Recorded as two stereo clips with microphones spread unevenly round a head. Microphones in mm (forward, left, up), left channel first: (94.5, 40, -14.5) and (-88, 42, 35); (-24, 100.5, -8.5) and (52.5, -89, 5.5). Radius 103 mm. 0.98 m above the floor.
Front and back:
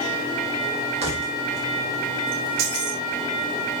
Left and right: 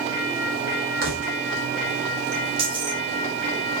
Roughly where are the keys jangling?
Behind right.